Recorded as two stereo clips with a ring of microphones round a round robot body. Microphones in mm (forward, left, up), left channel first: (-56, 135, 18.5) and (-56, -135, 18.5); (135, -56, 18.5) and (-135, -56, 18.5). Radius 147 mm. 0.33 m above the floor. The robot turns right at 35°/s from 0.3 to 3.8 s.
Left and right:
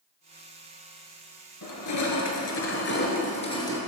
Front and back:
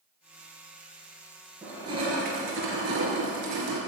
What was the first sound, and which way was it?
Crushing, 95° left.